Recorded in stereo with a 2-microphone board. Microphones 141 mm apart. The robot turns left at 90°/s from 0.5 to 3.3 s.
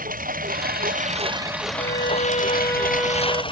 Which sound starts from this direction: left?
A violin, at 1.8 s.